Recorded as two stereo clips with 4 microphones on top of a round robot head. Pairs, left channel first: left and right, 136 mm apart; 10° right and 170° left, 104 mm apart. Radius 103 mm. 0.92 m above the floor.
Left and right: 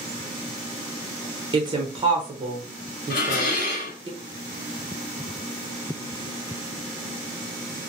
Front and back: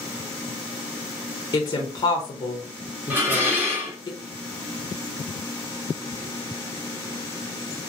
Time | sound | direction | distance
1.5 | a woman speaking | 45° right | 0.6 m
3.1 | dishes clattering | 100° left | 1.0 m